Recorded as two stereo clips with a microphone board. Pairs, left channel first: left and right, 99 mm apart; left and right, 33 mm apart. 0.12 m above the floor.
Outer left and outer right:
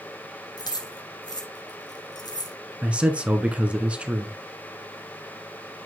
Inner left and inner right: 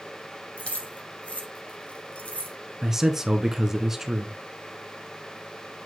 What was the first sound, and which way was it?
Keys jangling, 45° left (ahead or behind).